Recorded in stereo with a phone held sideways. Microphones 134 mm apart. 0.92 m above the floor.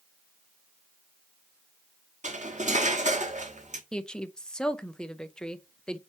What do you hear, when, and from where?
2.2 s cutlery clinking: 65° right (ahead or behind), 1.2 m
3.9 s a woman speaking: 5° left (ahead or behind), 0.5 m